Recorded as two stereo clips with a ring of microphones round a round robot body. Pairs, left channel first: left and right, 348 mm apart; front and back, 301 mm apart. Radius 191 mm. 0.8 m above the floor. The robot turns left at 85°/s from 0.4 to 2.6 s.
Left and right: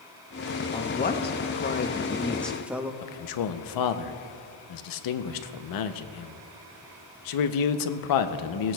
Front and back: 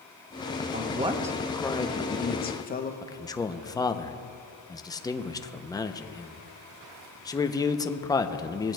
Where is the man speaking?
80° left, 0.7 m.